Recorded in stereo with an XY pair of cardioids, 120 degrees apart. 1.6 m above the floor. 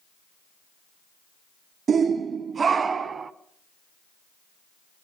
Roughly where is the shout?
Ahead right.